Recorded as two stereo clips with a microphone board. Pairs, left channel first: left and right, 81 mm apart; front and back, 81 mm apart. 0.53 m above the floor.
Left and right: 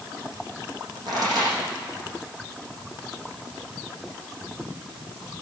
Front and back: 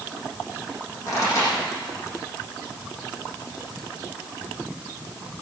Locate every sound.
1.1 s a pop: 50° right, 8.5 m